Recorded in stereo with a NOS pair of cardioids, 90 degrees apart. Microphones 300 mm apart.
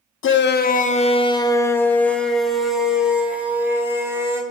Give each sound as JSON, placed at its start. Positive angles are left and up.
{"t": 0.2, "sound": "a shout", "azimuth_deg": 45, "distance_m": 0.9}